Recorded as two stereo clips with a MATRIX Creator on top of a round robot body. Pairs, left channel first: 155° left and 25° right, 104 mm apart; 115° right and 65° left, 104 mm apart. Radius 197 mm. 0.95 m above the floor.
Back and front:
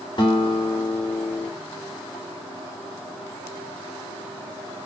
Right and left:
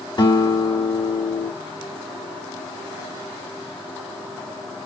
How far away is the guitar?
About 3 m.